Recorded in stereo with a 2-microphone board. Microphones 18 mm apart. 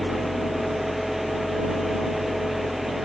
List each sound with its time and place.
0.0 s an engine running: 5° right (ahead or behind)